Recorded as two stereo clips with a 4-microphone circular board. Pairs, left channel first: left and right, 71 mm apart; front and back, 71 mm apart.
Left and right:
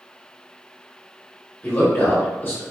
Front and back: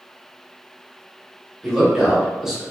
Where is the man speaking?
105° left, 1.1 m.